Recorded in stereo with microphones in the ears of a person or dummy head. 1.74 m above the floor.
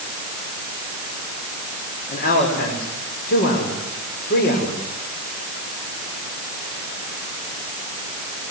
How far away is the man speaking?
About 6 m.